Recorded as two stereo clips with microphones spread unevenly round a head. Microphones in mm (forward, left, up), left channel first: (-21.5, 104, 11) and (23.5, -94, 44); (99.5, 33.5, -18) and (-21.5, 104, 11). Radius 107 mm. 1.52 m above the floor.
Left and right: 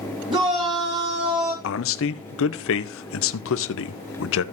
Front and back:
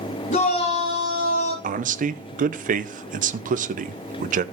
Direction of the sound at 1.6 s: 130° left.